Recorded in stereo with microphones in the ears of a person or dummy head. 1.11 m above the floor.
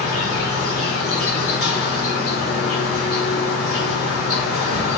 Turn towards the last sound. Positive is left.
turn(degrees=60)  # may be behind; listen again after turning